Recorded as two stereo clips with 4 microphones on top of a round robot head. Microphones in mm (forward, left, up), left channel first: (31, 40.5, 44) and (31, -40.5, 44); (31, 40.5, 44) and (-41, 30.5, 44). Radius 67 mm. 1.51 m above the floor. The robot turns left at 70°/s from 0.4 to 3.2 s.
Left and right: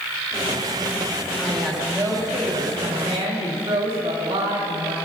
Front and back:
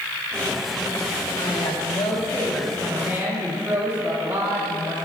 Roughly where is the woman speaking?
Ahead.